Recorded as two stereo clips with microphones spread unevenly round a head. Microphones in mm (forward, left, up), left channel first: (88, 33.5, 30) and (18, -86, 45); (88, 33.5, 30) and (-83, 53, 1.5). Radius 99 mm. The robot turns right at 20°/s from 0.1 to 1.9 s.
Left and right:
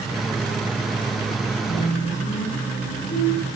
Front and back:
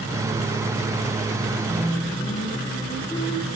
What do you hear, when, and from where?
1.7 s singing: 70° left, 6 m; by 3.5 s 75° left, 6 m